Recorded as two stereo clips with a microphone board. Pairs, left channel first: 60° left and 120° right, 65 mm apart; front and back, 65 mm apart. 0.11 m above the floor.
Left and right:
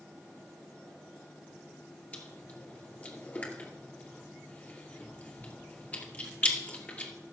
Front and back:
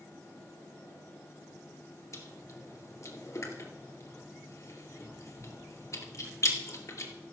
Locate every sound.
2.1 s chewing: 5° left, 2.5 m